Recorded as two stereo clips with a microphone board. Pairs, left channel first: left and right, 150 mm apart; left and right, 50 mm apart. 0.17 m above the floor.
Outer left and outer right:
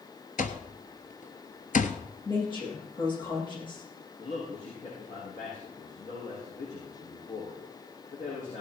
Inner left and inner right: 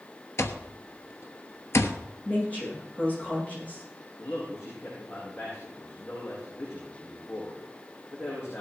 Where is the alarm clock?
60° left (ahead or behind), 1.1 m.